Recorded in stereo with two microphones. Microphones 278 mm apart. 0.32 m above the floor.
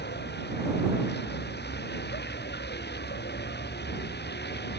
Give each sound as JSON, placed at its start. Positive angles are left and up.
{"t": 0.0, "sound": "a vehicle", "side_deg": 40}